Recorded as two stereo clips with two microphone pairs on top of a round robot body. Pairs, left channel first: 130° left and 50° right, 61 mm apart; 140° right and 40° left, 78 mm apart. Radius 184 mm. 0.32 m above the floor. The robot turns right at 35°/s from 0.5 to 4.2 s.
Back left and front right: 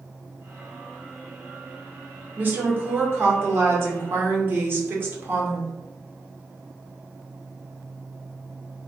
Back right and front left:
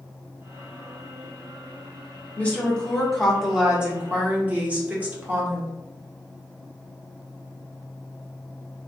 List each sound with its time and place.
2.4 s a woman speaking: 90° right, 1.4 m; by 5.7 s 25° right, 1.4 m